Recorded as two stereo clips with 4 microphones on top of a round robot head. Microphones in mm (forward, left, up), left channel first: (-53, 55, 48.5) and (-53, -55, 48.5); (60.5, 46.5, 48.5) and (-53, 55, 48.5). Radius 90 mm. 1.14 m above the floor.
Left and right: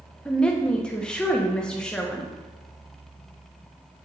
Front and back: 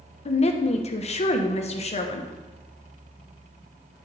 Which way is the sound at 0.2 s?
10° left.